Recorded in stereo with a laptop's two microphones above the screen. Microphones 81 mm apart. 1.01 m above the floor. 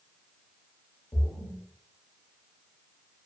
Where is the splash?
50° left (ahead or behind), 0.8 m.